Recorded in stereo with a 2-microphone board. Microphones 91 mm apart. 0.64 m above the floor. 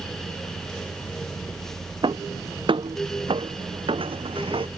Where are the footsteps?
60° right (ahead or behind); by 4.7 s 75° right (ahead or behind).